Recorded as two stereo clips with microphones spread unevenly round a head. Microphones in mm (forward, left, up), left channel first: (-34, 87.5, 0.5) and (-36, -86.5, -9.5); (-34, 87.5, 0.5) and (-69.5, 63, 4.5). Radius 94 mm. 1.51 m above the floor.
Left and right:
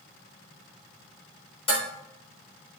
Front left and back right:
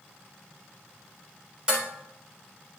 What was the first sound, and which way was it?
Dishes clattering, 145° left.